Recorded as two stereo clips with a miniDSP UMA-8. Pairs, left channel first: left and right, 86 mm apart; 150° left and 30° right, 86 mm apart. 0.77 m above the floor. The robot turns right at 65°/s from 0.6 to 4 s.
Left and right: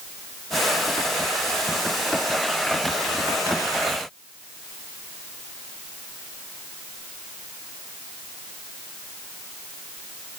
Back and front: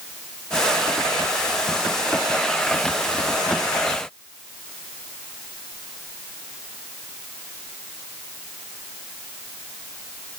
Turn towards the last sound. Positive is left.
No sound to turn to.